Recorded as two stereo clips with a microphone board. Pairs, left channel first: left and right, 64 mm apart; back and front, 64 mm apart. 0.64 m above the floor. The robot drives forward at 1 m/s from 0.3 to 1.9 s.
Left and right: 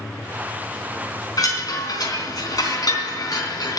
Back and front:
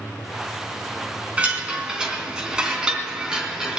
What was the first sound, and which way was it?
A chime, 70° left.